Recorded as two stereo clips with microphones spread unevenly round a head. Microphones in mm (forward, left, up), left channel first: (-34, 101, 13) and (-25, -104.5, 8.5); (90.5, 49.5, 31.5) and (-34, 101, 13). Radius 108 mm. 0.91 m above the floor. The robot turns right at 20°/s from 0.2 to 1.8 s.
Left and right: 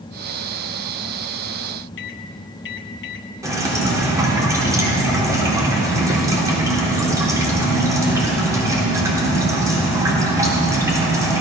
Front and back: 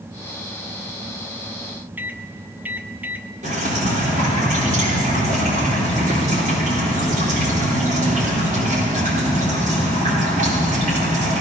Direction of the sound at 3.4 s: 160° right.